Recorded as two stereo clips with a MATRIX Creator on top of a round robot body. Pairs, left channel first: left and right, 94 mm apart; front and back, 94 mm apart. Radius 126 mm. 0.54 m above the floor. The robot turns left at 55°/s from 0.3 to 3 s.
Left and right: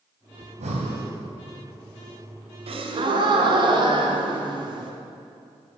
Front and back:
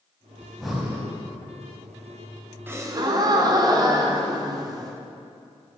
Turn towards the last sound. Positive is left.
turn(degrees=-130)